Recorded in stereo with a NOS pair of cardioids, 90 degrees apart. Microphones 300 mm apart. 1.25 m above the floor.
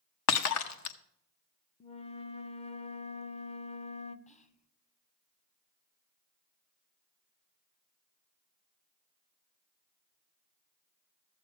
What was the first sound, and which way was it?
Breaking glass, 65° left.